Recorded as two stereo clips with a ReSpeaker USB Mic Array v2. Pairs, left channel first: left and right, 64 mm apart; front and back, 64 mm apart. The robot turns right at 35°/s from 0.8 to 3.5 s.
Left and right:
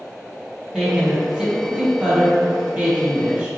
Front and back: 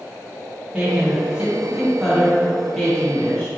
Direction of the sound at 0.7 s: 145° right.